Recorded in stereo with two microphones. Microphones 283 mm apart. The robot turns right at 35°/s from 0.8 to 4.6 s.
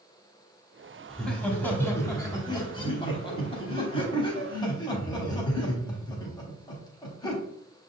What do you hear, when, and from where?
1.1 s laughter: centre (ahead or behind), 1.0 m; by 7.4 s 15° left (ahead or behind), 1.0 m